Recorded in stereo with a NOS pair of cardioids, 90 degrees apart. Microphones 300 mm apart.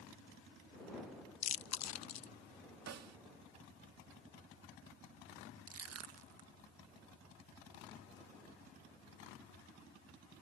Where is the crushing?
55° right.